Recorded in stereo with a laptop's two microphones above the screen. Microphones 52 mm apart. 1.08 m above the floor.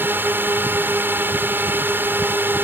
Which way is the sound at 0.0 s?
40° right (ahead or behind).